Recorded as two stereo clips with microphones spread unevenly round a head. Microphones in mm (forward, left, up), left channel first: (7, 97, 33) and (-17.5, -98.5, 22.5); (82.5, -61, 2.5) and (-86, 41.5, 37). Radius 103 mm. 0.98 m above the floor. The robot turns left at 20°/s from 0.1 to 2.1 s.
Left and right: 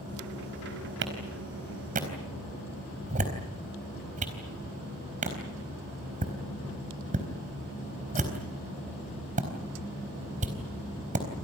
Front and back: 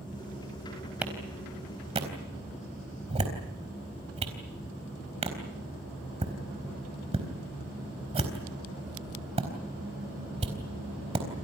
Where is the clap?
130° right, 4 m; by 11.3 s 150° right, 4 m.